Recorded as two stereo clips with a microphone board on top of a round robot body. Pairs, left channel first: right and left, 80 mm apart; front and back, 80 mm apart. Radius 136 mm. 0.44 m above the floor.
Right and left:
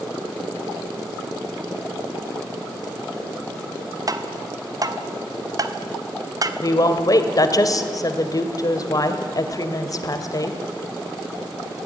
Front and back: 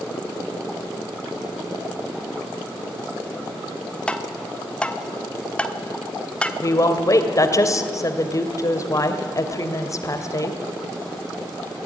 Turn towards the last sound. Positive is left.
turn(degrees=-50)